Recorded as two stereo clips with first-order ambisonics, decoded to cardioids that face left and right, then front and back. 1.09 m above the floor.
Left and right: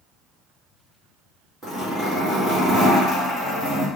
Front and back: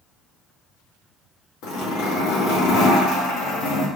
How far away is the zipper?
About 2.5 m.